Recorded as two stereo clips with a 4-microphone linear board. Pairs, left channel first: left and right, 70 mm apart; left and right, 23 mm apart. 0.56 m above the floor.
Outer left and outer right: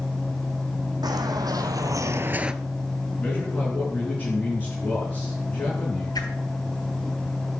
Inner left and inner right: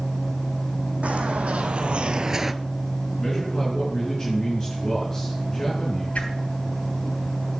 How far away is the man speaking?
About 6 m.